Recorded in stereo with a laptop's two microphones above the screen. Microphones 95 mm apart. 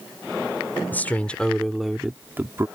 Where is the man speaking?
20° left (ahead or behind); by 2.7 s 30° right (ahead or behind).